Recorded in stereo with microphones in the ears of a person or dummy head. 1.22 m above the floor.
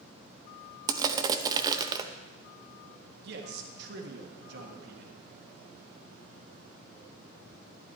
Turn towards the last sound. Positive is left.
turn(degrees=-60)  # may be behind; listen again after turning